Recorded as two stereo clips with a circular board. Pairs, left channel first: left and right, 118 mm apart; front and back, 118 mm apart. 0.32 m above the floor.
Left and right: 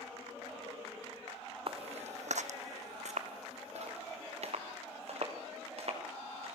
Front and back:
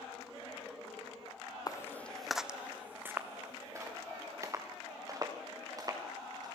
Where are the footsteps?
55° right, 0.7 m; by 6.6 s 120° right, 5 m.